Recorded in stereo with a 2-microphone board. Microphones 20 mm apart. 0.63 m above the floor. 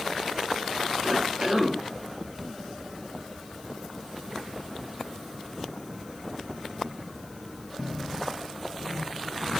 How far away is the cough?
About 2 m.